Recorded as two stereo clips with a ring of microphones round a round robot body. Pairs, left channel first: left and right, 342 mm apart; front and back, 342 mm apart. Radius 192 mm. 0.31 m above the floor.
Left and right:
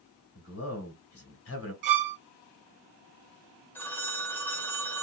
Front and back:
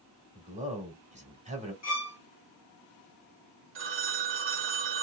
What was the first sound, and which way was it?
A man speaking, 120° left.